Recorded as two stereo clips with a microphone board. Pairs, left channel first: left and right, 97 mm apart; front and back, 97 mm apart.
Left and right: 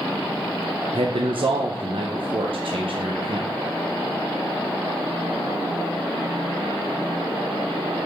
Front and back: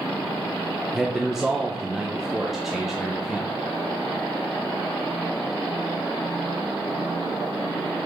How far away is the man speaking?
About 0.8 m.